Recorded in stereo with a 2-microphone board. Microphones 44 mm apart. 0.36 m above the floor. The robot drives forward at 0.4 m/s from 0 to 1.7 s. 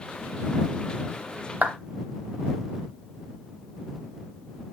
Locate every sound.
1.6 s a clap: 35° right (ahead or behind), 0.8 m